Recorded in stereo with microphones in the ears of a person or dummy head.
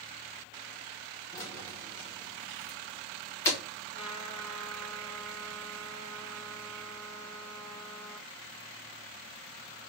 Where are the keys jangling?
15° left (ahead or behind), 1.3 m.